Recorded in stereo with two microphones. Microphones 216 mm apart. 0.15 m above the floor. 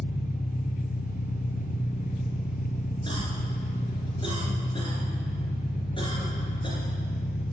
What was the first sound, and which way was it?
An engine running, 45° left (ahead or behind).